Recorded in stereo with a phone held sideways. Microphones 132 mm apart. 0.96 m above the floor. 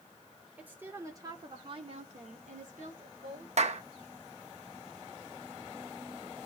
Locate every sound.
0.6 s a woman speaking: 10° right (ahead or behind), 3 m; by 3.5 s 85° right, 3 m
3.6 s a clap: 55° right (ahead or behind), 1.0 m